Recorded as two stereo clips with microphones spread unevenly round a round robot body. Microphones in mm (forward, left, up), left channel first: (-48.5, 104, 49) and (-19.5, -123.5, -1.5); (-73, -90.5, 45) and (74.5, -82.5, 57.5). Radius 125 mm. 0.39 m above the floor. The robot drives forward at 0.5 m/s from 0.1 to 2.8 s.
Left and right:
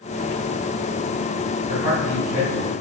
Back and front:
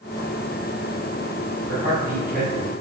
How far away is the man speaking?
About 3.5 m.